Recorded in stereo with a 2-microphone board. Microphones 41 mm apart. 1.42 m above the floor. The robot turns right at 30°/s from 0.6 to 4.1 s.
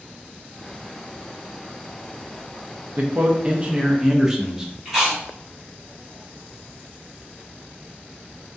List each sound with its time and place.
3.0 s a man speaking: 45° right, 0.5 m; by 4.7 s 15° right, 0.5 m
4.8 s chewing: 15° right (ahead or behind), 1.2 m